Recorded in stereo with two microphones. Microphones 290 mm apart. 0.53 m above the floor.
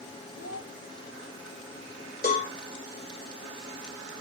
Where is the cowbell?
30° left (ahead or behind), 3 m.